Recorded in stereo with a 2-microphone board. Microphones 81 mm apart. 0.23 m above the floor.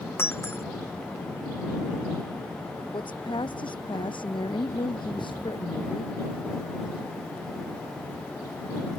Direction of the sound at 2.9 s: 70° left (ahead or behind).